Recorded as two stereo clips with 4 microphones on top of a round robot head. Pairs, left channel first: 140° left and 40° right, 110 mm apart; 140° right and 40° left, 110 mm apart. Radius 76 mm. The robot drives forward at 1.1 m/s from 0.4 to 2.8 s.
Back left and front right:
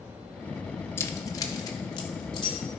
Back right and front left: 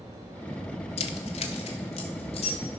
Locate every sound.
1.0 s keys jangling: 155° right, 0.9 m; by 2.6 s 170° right, 2.5 m